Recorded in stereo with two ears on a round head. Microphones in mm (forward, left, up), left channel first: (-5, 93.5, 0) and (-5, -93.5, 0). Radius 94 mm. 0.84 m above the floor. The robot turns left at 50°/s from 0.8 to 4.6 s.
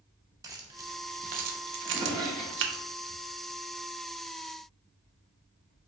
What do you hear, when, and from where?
0.4 s keys jangling: 15° right (ahead or behind), 0.6 m; by 2.8 s 50° right (ahead or behind), 0.6 m
1.8 s a drawer: 40° right (ahead or behind), 1.3 m; by 3.2 s 30° left (ahead or behind), 1.3 m